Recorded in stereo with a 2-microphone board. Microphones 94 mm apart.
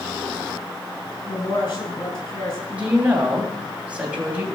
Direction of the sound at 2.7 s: 15° right (ahead or behind).